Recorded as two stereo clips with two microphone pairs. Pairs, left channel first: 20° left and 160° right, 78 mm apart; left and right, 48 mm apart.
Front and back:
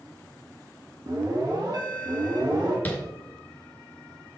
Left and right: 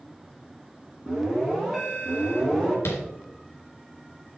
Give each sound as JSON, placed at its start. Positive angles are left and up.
{"t": 1.1, "sound": "an alarm", "azimuth_deg": -170, "distance_m": 2.5}
{"t": 2.9, "sound": "tapping", "azimuth_deg": 80, "distance_m": 2.5}